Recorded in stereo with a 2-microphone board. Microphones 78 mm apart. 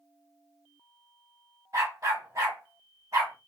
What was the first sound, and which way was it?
A dog barking, 45° right (ahead or behind).